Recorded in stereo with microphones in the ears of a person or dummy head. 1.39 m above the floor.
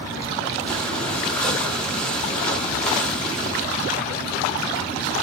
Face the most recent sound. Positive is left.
turn(degrees=5)  # may be behind; listen again after turning